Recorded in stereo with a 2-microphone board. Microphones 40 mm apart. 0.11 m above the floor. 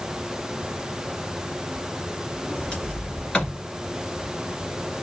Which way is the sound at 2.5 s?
20° left (ahead or behind).